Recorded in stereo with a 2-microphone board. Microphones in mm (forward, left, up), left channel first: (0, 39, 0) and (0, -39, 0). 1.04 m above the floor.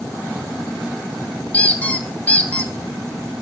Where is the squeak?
15° left (ahead or behind), 1.1 m.